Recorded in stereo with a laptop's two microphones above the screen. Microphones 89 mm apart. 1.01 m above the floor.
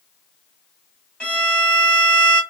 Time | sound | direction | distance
1.2 | a violin | 10° left (ahead or behind) | 1.1 m